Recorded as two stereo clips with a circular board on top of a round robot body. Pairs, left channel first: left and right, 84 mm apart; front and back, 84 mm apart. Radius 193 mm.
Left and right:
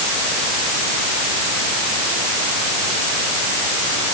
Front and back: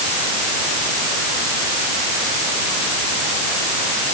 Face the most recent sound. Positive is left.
No sound to turn to.